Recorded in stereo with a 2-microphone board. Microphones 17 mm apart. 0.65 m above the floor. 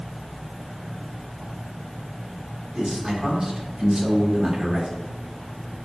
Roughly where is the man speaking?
Right.